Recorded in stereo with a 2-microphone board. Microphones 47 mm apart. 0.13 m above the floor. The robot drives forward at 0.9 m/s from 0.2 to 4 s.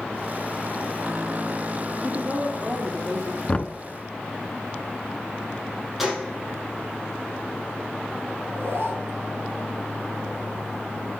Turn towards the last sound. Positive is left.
turn(degrees=-55)  # may be behind; listen again after turning